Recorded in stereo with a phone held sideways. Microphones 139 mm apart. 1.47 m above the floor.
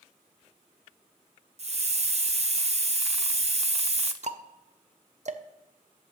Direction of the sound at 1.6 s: 50° right (ahead or behind).